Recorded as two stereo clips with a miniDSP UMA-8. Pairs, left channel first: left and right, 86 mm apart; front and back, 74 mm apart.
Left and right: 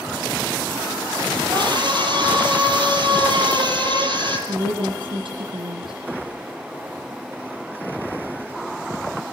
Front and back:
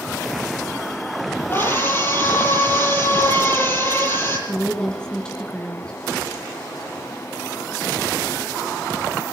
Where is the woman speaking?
80° right, 3 m.